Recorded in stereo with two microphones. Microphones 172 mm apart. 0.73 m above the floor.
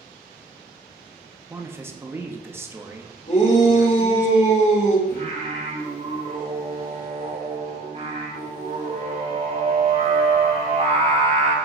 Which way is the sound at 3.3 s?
40° left (ahead or behind).